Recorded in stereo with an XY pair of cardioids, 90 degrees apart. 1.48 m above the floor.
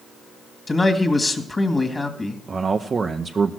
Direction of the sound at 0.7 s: 25° left.